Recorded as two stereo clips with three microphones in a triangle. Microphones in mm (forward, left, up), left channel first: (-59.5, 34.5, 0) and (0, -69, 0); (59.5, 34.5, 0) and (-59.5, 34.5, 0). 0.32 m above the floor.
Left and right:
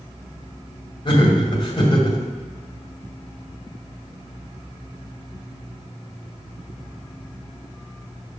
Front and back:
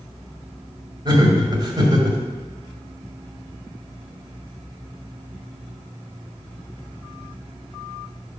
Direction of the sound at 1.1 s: 145° left.